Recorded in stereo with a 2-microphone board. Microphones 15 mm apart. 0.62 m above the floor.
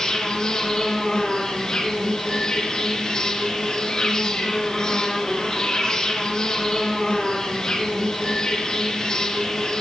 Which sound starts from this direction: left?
An insect, at 0.0 s.